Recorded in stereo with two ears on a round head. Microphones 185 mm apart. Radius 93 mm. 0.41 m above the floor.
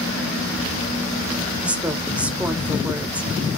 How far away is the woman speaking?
About 1.5 m.